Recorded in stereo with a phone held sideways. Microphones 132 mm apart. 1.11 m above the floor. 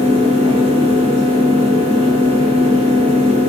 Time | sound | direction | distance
0.0 | a fan | 50° right (ahead or behind) | 1.0 m